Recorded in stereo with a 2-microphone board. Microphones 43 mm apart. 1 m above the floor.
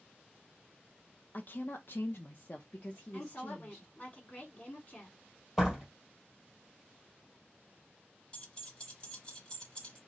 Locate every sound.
1.3 s a woman speaking: 40° left (ahead or behind), 0.7 m; by 3.9 s 15° left (ahead or behind), 1.7 m
3.1 s a woman speaking: 40° left (ahead or behind), 2.5 m
5.6 s a door slam: 5° right (ahead or behind), 2.5 m
8.3 s keys jangling: 25° left (ahead or behind), 1.2 m